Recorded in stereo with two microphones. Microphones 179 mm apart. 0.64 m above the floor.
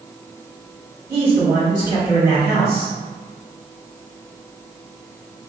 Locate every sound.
1.1 s a man speaking: 15° right (ahead or behind), 2.0 m